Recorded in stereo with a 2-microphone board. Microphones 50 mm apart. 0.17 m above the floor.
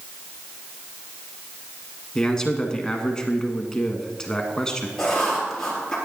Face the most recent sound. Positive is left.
turn(degrees=10)  # may be behind; listen again after turning